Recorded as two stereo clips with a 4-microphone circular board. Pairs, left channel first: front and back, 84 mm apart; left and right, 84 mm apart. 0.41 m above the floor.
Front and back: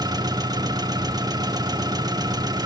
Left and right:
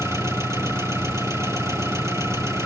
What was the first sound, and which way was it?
An engine running, 145° right.